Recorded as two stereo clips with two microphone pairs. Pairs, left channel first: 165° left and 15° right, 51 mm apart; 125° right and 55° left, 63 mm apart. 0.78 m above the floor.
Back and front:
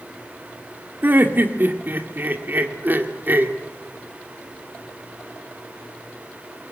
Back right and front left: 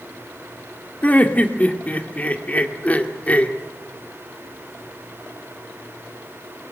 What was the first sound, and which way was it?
Laughter, 60° right.